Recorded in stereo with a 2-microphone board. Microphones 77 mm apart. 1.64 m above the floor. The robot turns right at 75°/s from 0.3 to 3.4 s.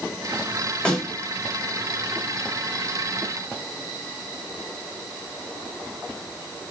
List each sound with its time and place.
0.8 s a snare drum: 10° left (ahead or behind), 8.5 m; by 1.1 s 5° right (ahead or behind), 8.5 m